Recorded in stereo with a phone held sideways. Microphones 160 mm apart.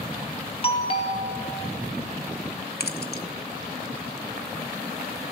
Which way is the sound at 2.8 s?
85° left.